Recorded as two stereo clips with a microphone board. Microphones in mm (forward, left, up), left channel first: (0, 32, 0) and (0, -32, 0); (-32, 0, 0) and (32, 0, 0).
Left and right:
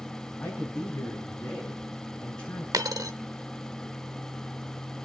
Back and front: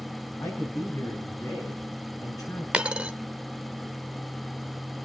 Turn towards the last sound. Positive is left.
turn(degrees=-75)